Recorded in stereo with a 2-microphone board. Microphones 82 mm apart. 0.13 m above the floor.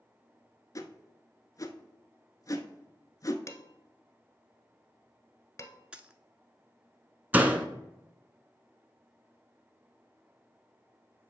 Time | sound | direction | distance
0.8 | a whoosh | 45° left (ahead or behind) | 0.7 m
3.5 | dishes clattering | 35° left (ahead or behind) | 1.1 m
5.9 | a dropped coin | 10° right (ahead or behind) | 0.5 m
7.3 | a door slam | 20° right (ahead or behind) | 0.7 m